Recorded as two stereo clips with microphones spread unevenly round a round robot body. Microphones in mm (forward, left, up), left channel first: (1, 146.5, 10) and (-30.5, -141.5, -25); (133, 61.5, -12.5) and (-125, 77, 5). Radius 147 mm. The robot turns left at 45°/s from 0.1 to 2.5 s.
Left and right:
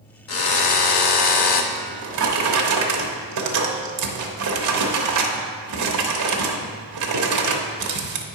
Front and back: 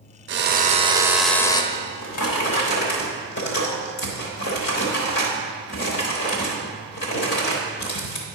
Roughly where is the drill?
Behind left.